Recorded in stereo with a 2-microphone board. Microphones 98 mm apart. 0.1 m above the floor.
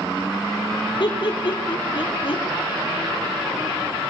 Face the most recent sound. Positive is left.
turn(degrees=60)  # may be behind; listen again after turning